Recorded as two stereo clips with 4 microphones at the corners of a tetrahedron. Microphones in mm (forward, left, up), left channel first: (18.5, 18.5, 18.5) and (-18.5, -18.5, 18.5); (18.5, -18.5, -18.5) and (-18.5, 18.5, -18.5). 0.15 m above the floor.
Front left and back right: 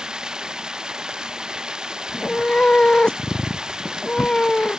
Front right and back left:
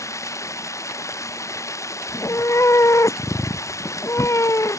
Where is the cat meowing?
30° right.